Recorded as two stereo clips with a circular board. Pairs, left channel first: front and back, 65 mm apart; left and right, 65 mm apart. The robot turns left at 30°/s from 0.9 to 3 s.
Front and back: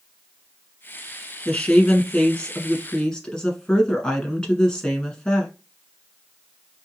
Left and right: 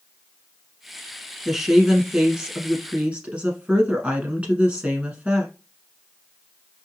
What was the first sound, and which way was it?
A woman speaking, 10° right.